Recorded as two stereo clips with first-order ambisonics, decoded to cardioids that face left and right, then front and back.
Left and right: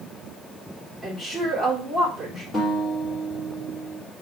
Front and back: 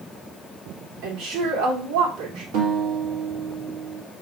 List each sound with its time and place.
1.0 s a woman speaking: 175° right, 2.5 m
2.5 s a guitar: 165° left, 2.5 m